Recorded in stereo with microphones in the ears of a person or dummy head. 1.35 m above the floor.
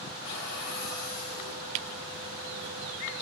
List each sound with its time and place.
0.2 s a cupboard door: 80° left, 4 m